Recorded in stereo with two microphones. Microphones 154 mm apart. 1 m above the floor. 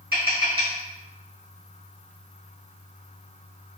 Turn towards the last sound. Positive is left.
turn(degrees=-70)  # may be behind; listen again after turning